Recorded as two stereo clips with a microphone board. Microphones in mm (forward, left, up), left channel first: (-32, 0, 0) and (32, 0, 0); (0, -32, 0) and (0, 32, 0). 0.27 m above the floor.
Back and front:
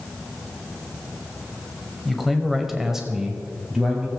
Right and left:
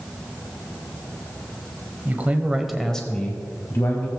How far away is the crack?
No crack in this recording.